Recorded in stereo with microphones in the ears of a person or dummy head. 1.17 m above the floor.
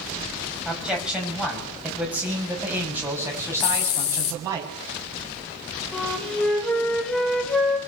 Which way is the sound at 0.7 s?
Centre (ahead or behind).